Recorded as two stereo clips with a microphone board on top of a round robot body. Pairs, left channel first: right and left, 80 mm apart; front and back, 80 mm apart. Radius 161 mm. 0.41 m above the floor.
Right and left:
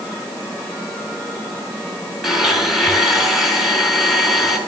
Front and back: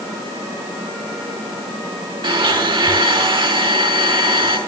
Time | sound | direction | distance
2.2 | a blender | straight behind | 6.5 m